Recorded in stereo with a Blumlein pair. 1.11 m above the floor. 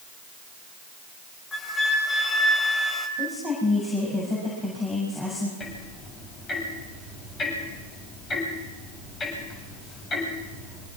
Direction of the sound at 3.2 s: 10° left.